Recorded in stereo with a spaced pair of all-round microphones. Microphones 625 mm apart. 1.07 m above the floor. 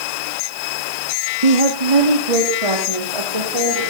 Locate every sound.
1.4 s a woman speaking: 75° right (ahead or behind), 1.4 m; by 3.8 s 60° right (ahead or behind), 3 m